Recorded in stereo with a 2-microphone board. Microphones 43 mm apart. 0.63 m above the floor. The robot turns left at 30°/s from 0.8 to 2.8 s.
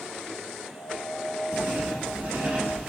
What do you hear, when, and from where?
1.5 s writing: 55° right (ahead or behind), 1.6 m; by 2.9 s 40° right (ahead or behind), 1.6 m